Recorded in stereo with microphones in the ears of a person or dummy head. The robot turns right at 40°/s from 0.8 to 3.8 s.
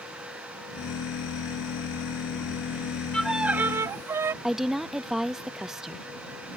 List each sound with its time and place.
3.1 s a violin: centre (ahead or behind); by 4.3 s 20° right (ahead or behind)
4.4 s a woman speaking: 5° right (ahead or behind)